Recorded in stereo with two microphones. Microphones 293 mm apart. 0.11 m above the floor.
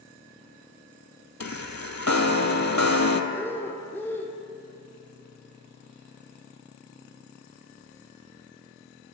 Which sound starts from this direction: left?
A chime, at 1.4 s.